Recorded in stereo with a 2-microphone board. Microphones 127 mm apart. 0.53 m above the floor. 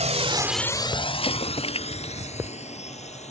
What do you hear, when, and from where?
0.0 s a drone: 70° right (ahead or behind); by 3.3 s 65° left (ahead or behind)
1.2 s an explosion: 50° left (ahead or behind)